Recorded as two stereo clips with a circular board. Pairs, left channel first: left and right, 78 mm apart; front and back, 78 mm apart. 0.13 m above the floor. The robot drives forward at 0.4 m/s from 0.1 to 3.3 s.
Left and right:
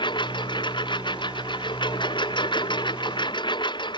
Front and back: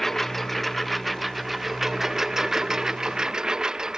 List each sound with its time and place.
0.0 s a lawn mower: 85° left; by 4.0 s 100° left